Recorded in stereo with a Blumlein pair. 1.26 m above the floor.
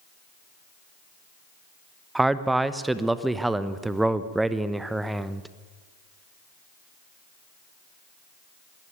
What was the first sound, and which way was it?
A man speaking, 5° right.